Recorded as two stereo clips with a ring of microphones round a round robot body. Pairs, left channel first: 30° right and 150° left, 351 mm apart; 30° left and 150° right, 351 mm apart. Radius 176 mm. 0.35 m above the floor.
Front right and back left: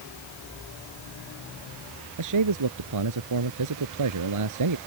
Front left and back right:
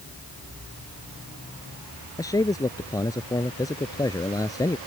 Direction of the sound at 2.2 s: 110° left.